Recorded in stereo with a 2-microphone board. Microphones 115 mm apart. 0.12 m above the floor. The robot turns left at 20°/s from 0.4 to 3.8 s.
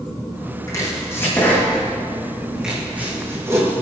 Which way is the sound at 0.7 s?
30° left (ahead or behind).